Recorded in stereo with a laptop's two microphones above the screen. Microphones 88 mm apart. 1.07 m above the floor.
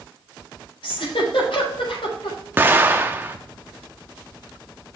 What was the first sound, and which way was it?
A giggle, 85° left.